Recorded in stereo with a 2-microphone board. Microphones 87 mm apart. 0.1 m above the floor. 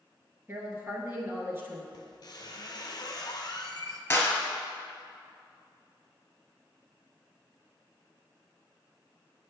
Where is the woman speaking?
30° right (ahead or behind), 1.2 m.